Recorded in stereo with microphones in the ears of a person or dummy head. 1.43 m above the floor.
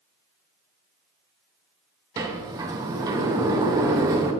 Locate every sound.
2.2 s a sliding door: 20° right (ahead or behind), 0.9 m